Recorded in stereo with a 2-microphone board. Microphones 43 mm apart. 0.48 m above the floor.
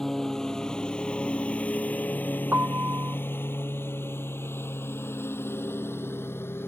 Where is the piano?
70° right (ahead or behind).